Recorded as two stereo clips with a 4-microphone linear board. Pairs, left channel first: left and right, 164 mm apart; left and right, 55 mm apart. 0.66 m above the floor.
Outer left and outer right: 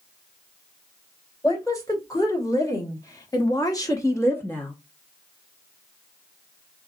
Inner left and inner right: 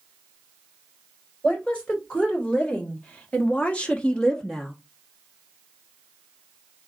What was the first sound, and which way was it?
A woman speaking, 20° left (ahead or behind).